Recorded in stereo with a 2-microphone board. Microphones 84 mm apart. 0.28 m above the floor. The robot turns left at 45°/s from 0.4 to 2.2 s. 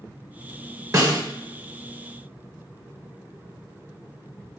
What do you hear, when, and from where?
0.9 s a snare drum: 40° right (ahead or behind), 0.8 m; by 1.2 s 50° right (ahead or behind), 0.8 m